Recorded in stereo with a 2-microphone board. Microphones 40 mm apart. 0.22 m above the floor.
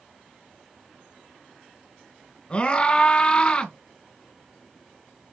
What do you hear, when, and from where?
2.5 s a scream: 25° left (ahead or behind), 2.5 m